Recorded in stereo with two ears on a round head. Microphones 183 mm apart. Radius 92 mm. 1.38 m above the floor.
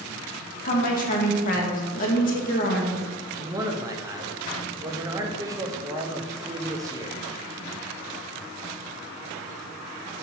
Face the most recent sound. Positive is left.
turn(degrees=-15)  # may be behind; listen again after turning